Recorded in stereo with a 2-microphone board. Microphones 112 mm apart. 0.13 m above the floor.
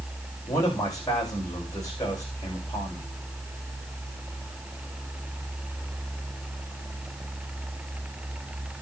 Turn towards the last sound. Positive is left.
turn(degrees=35)  # may be behind; listen again after turning